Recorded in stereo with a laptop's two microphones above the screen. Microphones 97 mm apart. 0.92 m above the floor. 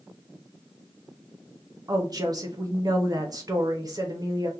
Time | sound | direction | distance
1.9 | a woman speaking | 40° right (ahead or behind) | 0.7 m